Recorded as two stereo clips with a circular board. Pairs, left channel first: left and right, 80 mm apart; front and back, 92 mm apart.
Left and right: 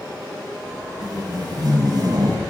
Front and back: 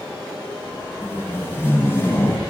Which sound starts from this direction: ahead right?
Tape being pulled, at 1.0 s.